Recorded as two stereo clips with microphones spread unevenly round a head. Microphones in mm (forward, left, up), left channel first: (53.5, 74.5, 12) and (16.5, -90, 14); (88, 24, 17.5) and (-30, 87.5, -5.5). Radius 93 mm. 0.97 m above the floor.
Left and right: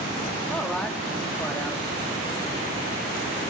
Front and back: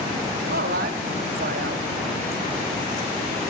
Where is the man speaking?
165° left, 1.5 m.